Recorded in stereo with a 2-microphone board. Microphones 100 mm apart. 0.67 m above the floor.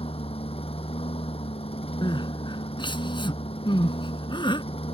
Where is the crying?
50° left (ahead or behind).